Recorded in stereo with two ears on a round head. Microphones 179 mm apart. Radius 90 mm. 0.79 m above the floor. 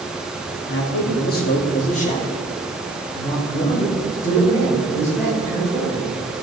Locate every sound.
0.7 s a man speaking: 55° left (ahead or behind), 1.7 m; by 6.1 s 10° left (ahead or behind), 4.5 m